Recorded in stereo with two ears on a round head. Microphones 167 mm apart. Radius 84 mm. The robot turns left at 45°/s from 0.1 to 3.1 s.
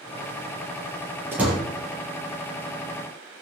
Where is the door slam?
10° right (ahead or behind), 7 m; by 1.6 s 5° left (ahead or behind), 7 m.